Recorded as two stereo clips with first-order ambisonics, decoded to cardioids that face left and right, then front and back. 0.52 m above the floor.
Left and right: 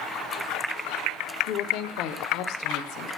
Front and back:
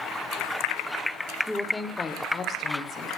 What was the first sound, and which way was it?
A woman speaking, 90° left.